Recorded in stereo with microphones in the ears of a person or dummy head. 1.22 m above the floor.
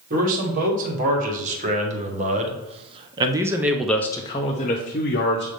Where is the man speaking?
45° right (ahead or behind), 2 m; by 5.5 s 45° left (ahead or behind), 0.9 m.